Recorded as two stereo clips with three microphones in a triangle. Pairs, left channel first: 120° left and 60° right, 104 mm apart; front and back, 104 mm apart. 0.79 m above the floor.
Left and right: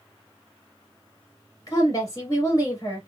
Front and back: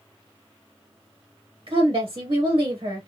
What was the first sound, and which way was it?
A woman speaking, 175° left.